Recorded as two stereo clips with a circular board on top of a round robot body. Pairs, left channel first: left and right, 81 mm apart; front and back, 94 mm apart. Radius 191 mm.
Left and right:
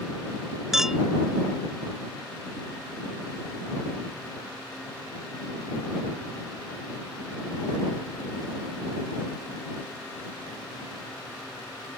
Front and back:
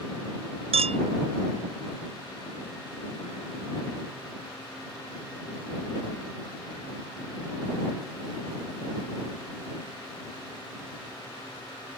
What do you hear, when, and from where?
0.7 s a clink: 175° right